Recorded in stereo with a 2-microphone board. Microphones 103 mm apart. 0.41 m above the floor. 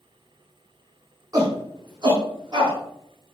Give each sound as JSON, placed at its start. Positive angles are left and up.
{"t": 1.3, "sound": "a shout", "side_deg": -40, "distance_m": 4.5}